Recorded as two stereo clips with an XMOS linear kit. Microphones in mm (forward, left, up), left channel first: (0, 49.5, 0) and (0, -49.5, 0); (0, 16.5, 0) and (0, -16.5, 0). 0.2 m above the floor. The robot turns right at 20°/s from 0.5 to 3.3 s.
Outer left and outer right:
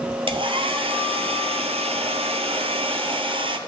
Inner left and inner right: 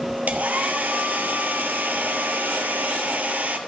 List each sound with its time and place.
0.3 s a hair dryer: 115° right, 0.7 m; by 3.6 s 60° right, 0.7 m